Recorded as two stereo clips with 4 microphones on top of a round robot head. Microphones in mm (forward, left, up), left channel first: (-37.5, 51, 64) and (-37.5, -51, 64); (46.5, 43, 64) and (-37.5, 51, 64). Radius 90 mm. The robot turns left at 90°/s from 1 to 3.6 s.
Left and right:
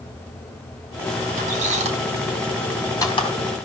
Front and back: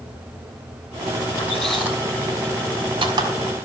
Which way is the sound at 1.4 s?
65° right.